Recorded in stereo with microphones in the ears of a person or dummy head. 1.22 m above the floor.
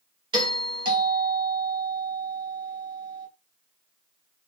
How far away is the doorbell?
About 0.6 m.